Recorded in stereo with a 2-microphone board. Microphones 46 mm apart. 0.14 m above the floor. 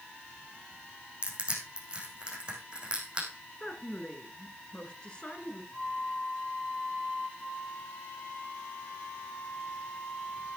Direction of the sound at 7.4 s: 50° left (ahead or behind).